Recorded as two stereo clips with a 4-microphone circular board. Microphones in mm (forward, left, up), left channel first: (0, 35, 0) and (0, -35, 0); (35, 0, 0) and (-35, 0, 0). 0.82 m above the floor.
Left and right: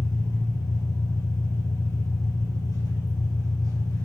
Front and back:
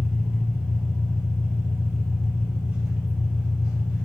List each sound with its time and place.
0.0 s an engine running: 105° left, 3 m